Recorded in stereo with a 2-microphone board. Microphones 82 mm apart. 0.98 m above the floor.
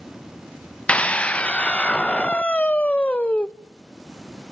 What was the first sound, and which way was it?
A scream, 15° left (ahead or behind).